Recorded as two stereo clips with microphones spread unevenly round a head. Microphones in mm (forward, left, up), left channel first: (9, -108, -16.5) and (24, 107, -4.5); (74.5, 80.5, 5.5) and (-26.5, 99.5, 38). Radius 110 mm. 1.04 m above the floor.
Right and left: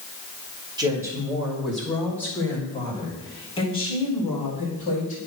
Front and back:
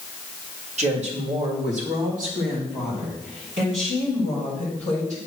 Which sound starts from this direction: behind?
A woman speaking, at 0.8 s.